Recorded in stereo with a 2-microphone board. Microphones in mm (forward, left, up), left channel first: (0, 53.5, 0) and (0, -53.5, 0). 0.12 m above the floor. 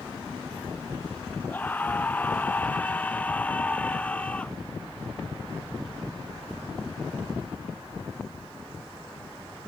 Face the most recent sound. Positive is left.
turn(degrees=10)  # may be behind; listen again after turning